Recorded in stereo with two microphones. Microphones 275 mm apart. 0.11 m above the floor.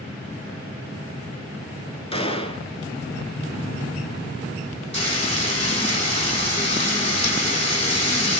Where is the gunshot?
20° left (ahead or behind), 0.7 m.